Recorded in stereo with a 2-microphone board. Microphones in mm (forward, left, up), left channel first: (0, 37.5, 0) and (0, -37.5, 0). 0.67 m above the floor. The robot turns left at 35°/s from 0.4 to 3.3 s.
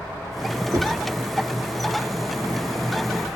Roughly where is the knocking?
Right.